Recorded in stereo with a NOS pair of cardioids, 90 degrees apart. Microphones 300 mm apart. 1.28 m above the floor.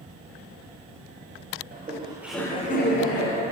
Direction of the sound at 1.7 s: 30° right.